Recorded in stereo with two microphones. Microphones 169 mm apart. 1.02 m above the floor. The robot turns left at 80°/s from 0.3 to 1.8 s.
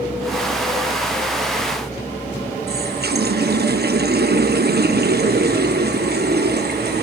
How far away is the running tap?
About 0.9 m.